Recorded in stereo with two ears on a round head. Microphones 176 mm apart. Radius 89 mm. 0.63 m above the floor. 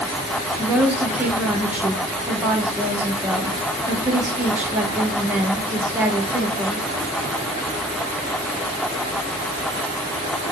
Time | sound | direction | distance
0.6 | a woman speaking | 10° right (ahead or behind) | 1.0 m